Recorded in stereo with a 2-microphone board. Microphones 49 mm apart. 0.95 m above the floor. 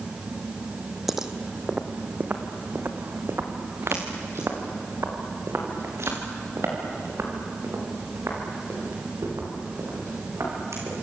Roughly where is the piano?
I don't hear a piano.